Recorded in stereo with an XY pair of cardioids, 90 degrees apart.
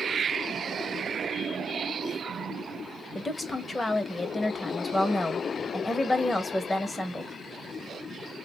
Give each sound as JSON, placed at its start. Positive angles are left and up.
{"t": 3.1, "sound": "a woman speaking", "azimuth_deg": 25, "distance_m": 0.9}